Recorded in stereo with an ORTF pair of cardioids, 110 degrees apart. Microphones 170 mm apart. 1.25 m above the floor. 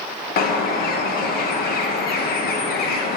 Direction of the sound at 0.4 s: 70° left.